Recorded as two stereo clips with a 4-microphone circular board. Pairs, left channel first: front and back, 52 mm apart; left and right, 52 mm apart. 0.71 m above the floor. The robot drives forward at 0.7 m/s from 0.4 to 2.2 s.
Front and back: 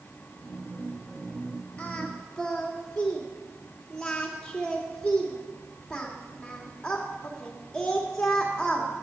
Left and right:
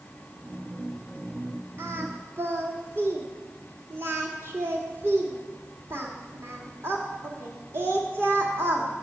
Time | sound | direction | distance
1.8 | singing | 65° right | 1.9 m